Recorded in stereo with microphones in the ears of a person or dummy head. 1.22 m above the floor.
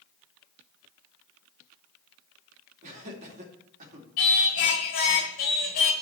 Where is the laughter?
40° right (ahead or behind), 2.5 m.